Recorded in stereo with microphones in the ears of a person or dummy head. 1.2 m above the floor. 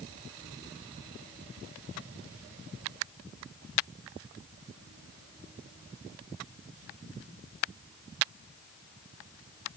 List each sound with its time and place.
Only background noise.